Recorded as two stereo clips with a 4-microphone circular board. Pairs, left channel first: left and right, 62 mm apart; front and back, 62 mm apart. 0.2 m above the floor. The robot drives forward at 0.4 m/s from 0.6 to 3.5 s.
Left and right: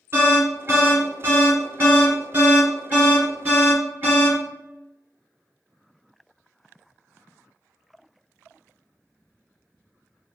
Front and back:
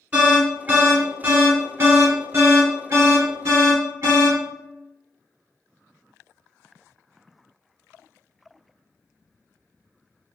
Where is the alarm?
125° right, 1.7 m; by 4.4 s 150° right, 2.5 m.